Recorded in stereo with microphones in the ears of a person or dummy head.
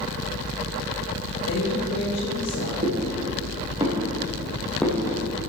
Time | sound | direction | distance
1.5 | a woman speaking | 80° left | 2.5 m
2.8 | footsteps | 40° right (ahead or behind) | 4 m